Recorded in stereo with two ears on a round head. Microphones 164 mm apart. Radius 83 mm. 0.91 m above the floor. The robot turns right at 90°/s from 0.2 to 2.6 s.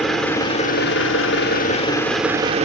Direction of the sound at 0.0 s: Straight ahead.